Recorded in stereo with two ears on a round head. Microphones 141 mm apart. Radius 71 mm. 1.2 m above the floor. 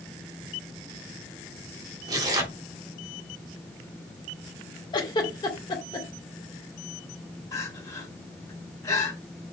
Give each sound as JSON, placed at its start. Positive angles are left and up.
{"t": 2.1, "sound": "tearing paper", "side_deg": -25, "distance_m": 3.0}
{"t": 4.9, "sound": "a giggle", "side_deg": 25, "distance_m": 2.0}
{"t": 7.5, "sound": "crying", "side_deg": 20, "distance_m": 3.5}